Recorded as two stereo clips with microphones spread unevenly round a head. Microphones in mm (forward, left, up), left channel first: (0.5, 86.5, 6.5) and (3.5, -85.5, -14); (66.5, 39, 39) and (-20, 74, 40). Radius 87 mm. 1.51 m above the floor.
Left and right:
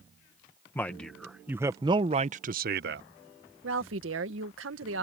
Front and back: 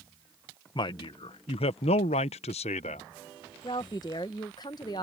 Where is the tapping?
I don't hear tapping.